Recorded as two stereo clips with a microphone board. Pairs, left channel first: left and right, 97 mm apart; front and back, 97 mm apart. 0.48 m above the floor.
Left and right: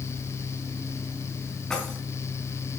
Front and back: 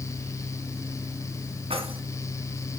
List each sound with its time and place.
1.7 s keys jangling: 175° left, 3 m